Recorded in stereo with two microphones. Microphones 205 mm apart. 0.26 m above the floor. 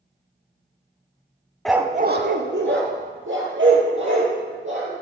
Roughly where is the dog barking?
Centre.